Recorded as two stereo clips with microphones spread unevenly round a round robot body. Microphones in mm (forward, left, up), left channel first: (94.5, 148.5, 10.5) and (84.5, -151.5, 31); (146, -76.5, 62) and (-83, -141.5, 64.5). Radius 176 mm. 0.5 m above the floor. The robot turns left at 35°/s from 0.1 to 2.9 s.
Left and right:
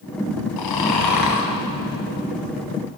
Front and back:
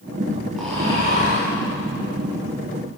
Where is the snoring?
105° left, 1.8 m; by 1.5 s 75° left, 1.8 m.